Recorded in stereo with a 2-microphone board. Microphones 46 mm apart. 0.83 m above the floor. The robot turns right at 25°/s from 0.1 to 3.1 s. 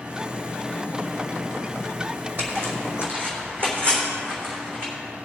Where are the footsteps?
45° right (ahead or behind), 2.5 m; by 4.9 s 50° right (ahead or behind), 4 m.